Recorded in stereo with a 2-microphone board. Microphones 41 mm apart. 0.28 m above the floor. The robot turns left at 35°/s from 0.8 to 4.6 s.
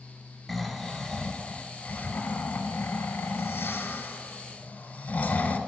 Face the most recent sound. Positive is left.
turn(degrees=50)